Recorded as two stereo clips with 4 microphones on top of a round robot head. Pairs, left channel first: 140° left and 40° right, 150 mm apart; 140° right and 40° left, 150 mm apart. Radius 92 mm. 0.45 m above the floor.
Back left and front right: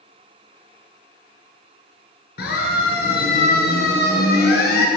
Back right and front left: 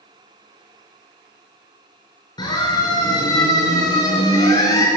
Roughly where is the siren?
Behind left.